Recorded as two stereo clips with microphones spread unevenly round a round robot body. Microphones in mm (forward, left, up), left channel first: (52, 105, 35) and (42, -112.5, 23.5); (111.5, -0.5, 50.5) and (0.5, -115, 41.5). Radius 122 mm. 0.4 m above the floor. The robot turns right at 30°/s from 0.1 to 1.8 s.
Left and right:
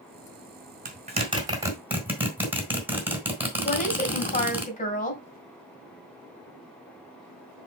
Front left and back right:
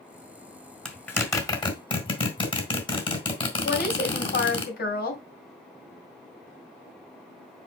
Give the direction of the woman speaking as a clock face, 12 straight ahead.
11 o'clock.